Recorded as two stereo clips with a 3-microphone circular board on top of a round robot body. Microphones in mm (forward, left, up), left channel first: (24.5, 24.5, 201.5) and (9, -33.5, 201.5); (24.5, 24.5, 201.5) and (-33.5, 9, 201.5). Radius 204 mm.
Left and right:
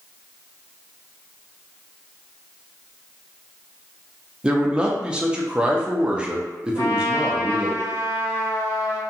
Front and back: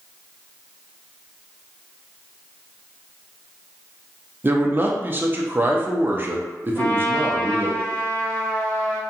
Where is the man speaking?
165° right, 0.8 m.